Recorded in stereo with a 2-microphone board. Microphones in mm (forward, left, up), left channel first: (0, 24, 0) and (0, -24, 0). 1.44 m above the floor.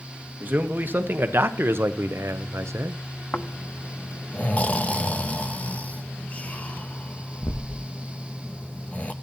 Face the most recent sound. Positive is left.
turn(degrees=30)  # may be behind; listen again after turning